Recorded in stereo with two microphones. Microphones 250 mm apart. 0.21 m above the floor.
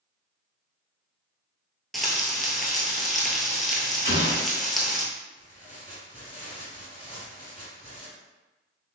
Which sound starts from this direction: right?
An explosion, at 4.0 s.